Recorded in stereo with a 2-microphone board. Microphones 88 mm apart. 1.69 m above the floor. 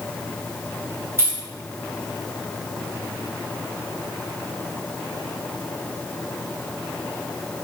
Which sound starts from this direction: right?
Keys jangling, at 1.2 s.